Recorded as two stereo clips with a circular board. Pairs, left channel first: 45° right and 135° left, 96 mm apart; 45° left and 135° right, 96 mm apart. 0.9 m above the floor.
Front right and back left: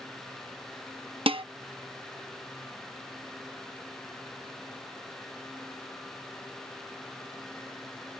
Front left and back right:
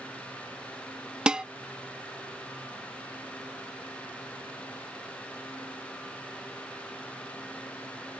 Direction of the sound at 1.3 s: 145° left.